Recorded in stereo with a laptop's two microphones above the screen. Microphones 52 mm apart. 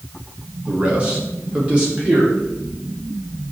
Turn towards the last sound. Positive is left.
turn(degrees=-20)  # may be behind; listen again after turning